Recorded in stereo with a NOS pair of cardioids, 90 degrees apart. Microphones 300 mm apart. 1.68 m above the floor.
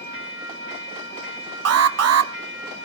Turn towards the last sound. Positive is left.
turn(degrees=-55)